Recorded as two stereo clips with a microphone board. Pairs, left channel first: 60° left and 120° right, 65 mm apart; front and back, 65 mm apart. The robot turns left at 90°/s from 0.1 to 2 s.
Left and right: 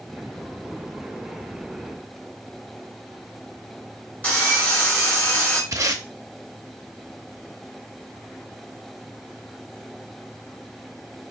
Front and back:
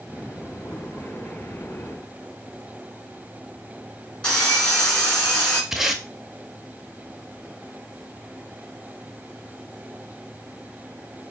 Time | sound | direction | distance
4.2 | sawing | 50° left | 1.5 m
5.7 | tape being pulled | 95° right | 0.5 m